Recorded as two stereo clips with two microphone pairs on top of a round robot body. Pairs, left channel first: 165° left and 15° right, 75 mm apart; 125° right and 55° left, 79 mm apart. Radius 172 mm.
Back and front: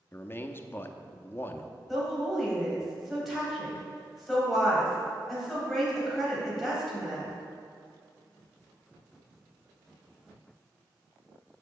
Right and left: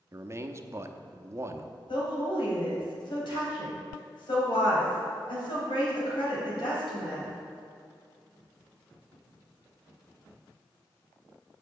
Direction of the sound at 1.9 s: 105° right.